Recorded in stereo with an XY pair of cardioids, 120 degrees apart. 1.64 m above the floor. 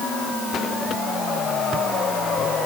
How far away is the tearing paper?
I don't hear tearing paper.